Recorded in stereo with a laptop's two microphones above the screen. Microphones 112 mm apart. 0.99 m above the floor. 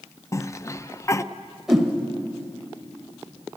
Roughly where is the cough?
Left.